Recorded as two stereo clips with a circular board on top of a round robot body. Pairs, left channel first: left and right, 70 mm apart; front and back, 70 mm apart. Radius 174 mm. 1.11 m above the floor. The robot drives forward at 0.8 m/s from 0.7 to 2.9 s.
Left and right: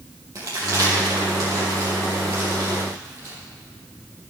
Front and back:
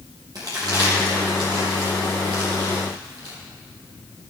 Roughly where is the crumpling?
Behind right.